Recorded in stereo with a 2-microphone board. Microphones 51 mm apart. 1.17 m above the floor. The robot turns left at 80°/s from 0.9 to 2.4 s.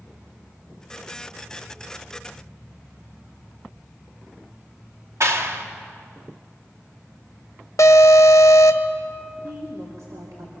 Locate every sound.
5.2 s a clap: 60° right (ahead or behind), 1.8 m
7.8 s an alarm: 70° left (ahead or behind), 1.2 m
9.4 s a woman speaking: 75° right (ahead or behind), 3 m